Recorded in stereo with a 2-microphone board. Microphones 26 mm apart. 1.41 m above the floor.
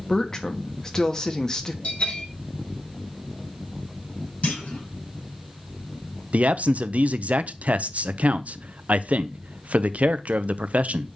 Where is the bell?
60° left (ahead or behind), 1.9 m.